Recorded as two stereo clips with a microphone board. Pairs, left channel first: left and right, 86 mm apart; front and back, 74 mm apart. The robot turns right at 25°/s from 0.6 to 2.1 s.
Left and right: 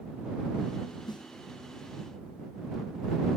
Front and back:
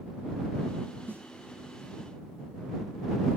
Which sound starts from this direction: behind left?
A snare drum, at 1.1 s.